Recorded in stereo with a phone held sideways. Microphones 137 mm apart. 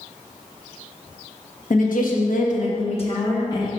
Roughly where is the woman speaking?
Left.